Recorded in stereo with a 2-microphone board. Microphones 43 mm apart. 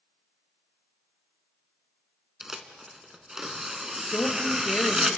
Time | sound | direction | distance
2.4 | tearing paper | 10° right (ahead or behind) | 1.2 m
4.1 | a woman speaking | 50° left (ahead or behind) | 3.5 m